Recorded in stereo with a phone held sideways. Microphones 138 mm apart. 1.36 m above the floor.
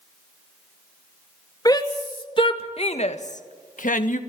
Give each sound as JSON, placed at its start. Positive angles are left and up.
{"t": 1.6, "sound": "a shout", "side_deg": 30, "distance_m": 2.5}